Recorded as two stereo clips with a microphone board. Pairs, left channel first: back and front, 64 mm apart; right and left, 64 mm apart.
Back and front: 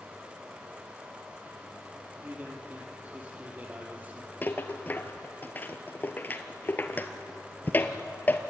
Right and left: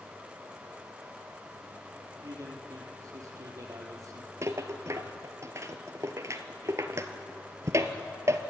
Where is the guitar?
I don't hear a guitar.